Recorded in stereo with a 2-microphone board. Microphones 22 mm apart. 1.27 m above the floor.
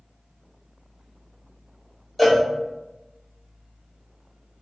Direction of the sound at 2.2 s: 5° left (ahead or behind).